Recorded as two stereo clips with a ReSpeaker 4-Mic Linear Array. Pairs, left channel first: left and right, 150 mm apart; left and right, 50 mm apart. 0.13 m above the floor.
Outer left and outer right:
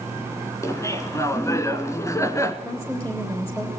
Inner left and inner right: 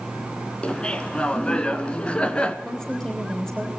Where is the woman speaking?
15° left (ahead or behind), 4.5 m.